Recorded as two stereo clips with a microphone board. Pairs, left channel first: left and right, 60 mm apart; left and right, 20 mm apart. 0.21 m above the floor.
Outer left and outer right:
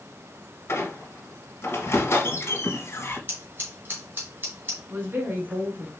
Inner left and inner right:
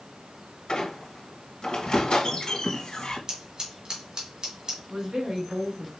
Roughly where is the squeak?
Left.